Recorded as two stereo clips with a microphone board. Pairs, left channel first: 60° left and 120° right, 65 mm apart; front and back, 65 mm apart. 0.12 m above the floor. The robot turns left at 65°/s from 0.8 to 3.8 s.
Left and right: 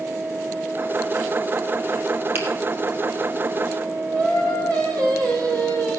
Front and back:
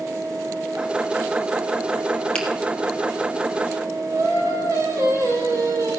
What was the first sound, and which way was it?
A finger snap, 70° right.